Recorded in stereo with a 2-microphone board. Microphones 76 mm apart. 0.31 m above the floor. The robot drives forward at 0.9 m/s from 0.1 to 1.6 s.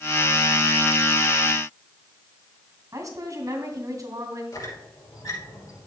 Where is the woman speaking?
50° right (ahead or behind), 2.5 m.